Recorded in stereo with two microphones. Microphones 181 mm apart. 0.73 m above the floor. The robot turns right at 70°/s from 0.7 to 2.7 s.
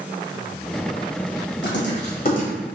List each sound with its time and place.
1.6 s writing: 80° left, 1.4 m; by 2.5 s 35° left (ahead or behind), 1.4 m